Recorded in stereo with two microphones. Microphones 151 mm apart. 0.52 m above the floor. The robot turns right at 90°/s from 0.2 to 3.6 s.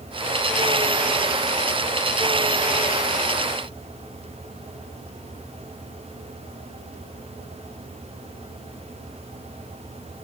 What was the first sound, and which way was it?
Only background noise.